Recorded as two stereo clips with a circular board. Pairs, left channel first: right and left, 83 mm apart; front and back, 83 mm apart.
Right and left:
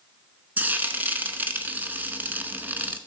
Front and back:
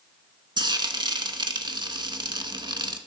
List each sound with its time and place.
0.6 s frying: 160° left, 0.9 m